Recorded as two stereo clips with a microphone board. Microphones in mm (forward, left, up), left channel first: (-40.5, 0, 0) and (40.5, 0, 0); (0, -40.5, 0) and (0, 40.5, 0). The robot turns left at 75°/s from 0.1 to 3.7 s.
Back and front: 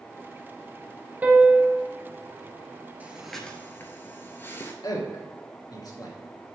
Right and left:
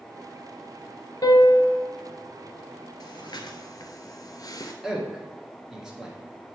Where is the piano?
65° right, 0.8 m; by 1.8 s 110° right, 0.8 m.